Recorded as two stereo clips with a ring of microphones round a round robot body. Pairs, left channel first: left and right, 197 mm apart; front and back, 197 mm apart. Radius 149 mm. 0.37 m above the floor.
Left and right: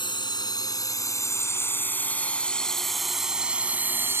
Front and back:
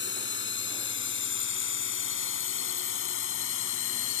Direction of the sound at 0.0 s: 25° left.